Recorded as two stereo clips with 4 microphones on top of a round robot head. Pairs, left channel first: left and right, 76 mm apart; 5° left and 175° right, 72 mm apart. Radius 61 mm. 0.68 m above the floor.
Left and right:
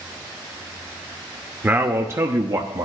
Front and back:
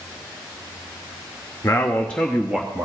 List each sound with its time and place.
1.6 s a man speaking: 30° right, 0.8 m; by 2.9 s 105° right, 0.9 m